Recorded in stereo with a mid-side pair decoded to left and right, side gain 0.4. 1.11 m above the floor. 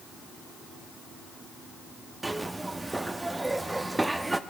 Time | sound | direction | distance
2.2 | a zipper | 20° right | 1.0 m